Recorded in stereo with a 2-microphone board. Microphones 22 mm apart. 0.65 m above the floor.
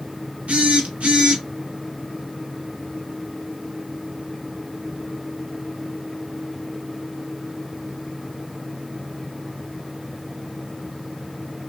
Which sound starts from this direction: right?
A phone buzzing, at 0.5 s.